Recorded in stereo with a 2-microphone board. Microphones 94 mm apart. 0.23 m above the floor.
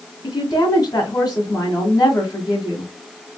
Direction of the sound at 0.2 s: 45° left (ahead or behind).